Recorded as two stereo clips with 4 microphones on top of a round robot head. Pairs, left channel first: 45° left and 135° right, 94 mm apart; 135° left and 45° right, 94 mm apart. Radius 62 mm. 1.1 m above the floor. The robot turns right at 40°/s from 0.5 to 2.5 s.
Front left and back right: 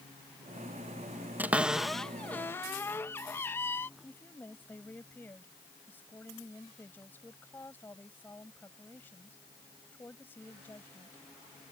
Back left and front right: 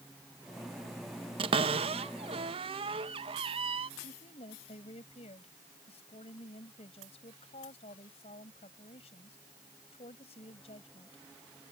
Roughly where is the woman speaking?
Behind left.